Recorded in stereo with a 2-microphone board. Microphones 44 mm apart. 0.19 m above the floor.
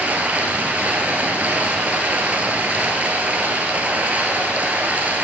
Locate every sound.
0.0 s running water: 35° right (ahead or behind), 1.5 m